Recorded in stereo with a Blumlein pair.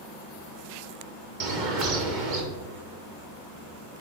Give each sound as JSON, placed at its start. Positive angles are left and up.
{"t": 1.4, "sound": "a bird", "azimuth_deg": -45, "distance_m": 1.4}